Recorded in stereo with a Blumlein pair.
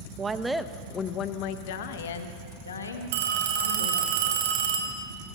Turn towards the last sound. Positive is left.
turn(degrees=-55)